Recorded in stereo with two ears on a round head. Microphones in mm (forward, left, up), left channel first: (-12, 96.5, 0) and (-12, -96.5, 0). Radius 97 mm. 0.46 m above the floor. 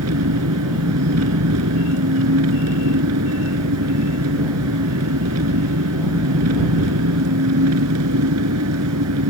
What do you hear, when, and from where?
0.0 s an engine running: 80° right